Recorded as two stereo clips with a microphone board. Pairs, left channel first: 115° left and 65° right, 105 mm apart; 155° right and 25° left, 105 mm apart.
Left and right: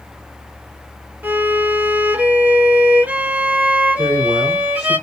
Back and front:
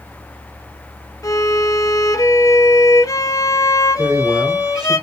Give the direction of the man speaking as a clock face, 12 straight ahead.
10 o'clock.